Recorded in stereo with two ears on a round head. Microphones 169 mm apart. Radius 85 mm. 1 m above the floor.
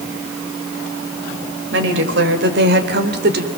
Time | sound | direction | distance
1.7 | a woman speaking | 70° right (ahead or behind) | 4 m